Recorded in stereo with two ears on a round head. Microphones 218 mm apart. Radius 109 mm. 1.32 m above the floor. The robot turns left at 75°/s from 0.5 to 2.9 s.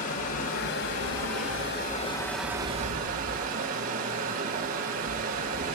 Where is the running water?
140° left, 2.5 m; by 5.8 s 40° right, 2.5 m.